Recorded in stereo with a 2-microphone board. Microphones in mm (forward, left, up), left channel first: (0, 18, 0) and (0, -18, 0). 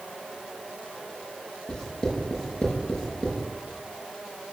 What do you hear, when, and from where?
1.7 s writing: 15° left (ahead or behind), 5.5 m